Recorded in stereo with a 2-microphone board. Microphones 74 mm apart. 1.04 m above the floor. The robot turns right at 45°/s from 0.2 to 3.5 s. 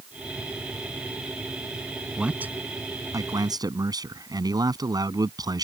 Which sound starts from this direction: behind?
A man speaking, at 2.2 s.